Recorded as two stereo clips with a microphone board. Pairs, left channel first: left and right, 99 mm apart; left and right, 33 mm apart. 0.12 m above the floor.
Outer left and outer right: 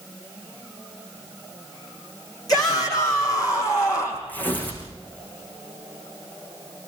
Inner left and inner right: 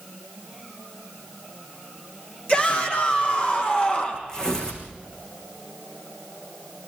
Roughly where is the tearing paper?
Centre.